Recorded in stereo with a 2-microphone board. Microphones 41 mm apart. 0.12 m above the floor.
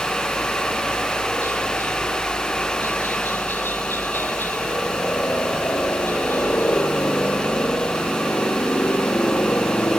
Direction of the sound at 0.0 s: 65° left (ahead or behind).